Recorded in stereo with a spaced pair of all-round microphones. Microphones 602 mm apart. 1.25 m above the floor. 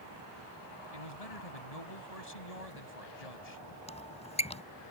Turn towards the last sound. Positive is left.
turn(degrees=10)  # may be behind; listen again after turning